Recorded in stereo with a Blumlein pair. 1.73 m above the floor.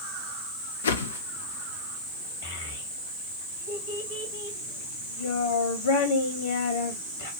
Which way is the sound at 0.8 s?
65° left.